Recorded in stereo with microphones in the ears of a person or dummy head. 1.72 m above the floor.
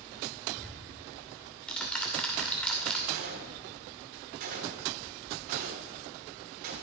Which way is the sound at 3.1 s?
50° right (ahead or behind).